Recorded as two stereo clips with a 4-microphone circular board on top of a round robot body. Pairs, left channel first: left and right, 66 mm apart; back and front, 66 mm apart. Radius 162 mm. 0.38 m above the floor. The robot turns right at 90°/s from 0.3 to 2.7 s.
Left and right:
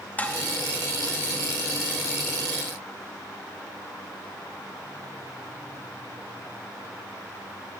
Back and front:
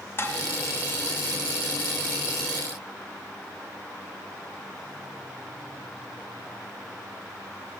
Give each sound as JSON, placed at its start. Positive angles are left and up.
{"t": 0.2, "sound": "dishes clattering", "azimuth_deg": 145, "distance_m": 0.8}